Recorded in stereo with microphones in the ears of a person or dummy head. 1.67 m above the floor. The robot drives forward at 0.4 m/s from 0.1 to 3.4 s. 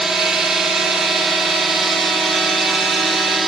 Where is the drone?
Centre (ahead or behind).